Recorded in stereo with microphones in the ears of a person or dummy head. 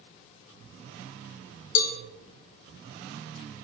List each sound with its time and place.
1.8 s a cowbell: 75° left (ahead or behind), 1.8 m